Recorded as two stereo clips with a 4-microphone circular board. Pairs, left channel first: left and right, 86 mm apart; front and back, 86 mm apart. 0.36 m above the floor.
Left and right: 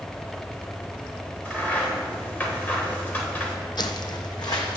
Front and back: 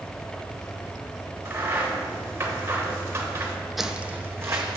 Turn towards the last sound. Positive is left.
turn(degrees=130)